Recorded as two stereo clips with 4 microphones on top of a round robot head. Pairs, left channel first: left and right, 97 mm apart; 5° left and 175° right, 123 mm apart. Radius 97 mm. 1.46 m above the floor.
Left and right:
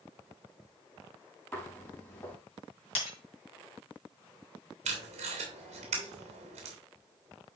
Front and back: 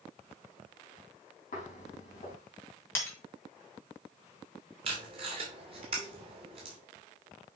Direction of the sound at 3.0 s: 75° left.